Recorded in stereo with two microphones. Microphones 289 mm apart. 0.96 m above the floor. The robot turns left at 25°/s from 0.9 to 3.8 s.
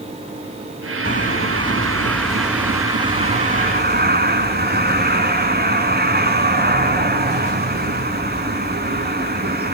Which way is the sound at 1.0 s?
35° left.